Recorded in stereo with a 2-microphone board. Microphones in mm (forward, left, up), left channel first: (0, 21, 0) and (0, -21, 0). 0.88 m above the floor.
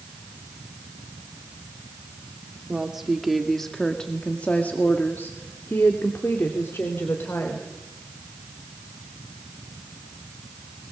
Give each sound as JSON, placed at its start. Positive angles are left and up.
{"t": 2.7, "sound": "a woman speaking", "side_deg": -15, "distance_m": 2.5}